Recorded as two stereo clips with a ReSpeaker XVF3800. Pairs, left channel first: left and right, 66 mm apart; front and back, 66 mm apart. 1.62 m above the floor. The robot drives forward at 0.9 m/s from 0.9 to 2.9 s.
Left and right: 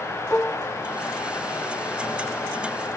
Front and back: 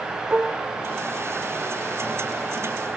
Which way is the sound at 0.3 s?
125° left.